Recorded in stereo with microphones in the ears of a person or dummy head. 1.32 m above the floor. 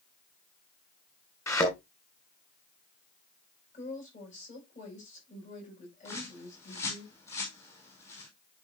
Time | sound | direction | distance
1.5 | a thud | 15° left (ahead or behind) | 3 m
3.7 | a woman speaking | 40° left (ahead or behind) | 8.5 m
6.0 | a bird | 15° left (ahead or behind) | 5.5 m